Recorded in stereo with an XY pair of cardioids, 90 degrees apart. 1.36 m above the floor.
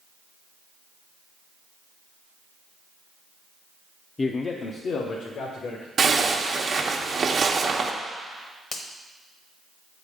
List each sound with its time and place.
4.2 s a man speaking: 35° left, 0.5 m; by 5.9 s 80° left, 1.5 m
6.0 s a zipper: 50° right, 0.9 m
8.7 s a finger snap: 60° left, 1.1 m